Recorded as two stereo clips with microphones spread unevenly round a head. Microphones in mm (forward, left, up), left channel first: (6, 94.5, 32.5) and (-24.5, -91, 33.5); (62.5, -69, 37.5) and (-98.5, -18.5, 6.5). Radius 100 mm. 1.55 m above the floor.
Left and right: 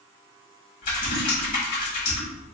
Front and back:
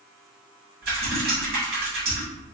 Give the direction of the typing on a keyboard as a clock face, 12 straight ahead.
8 o'clock.